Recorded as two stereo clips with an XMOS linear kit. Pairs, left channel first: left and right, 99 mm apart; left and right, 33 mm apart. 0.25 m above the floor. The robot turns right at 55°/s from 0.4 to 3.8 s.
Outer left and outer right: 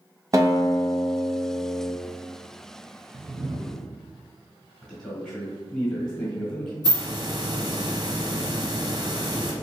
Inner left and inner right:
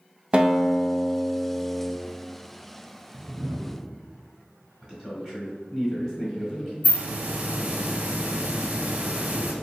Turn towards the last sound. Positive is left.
turn(degrees=-45)  # may be behind; listen again after turning